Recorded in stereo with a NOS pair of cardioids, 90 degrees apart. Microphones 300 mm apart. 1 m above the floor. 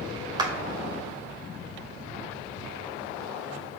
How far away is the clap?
About 1.6 m.